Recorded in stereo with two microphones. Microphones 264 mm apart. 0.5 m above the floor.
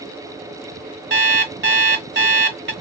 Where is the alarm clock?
45° right (ahead or behind), 1.0 m.